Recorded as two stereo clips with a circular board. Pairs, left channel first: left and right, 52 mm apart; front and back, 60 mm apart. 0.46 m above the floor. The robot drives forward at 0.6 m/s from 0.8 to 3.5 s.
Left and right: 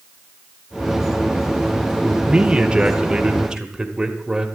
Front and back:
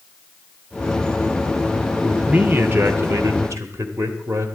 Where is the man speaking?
125° right, 0.7 m; by 4.5 s 165° right, 1.3 m.